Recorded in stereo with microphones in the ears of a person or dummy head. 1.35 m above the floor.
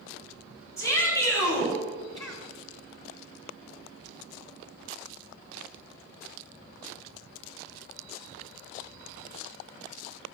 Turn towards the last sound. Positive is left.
turn(degrees=20)  # may be behind; listen again after turning